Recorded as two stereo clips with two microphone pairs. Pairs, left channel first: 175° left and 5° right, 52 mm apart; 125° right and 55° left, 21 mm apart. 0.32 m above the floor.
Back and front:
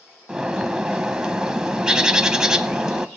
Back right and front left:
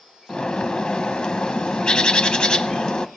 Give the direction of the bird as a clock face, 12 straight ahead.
3 o'clock.